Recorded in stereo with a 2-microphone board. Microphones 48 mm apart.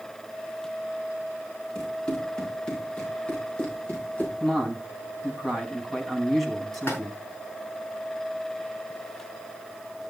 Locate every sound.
1.8 s running footsteps: 15° left (ahead or behind), 8 m; by 4.3 s 30° left (ahead or behind), 5.5 m
4.4 s a man speaking: centre (ahead or behind), 4 m
6.7 s a splash: 50° left (ahead or behind), 6 m